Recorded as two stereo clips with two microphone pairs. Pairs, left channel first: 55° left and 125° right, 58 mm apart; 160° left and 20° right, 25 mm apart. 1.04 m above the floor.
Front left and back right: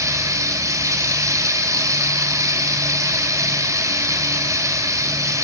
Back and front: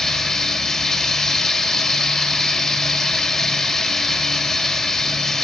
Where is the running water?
130° right, 4 m.